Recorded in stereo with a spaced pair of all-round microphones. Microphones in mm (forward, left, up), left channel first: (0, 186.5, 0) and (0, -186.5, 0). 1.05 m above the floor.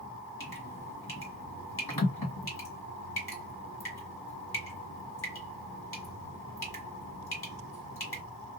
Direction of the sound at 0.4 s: 70° left (ahead or behind).